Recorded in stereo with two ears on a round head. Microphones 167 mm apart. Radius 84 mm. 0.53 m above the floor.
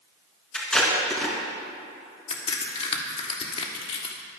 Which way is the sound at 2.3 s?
35° left (ahead or behind).